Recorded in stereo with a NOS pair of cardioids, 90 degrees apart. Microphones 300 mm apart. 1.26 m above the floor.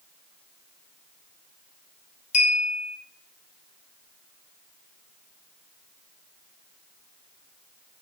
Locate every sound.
2.3 s a clink: 25° left, 0.8 m